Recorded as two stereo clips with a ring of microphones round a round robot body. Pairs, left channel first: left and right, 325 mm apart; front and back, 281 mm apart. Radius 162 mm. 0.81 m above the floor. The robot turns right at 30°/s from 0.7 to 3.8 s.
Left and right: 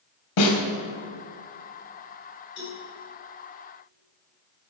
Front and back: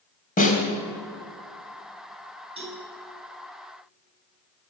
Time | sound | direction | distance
0.4 | a snare drum | 60° left | 3.5 m
2.6 | a cowbell | 110° left | 6.5 m